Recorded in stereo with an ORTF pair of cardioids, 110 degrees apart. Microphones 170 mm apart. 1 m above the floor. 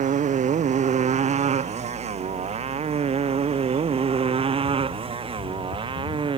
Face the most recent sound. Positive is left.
turn(degrees=-30)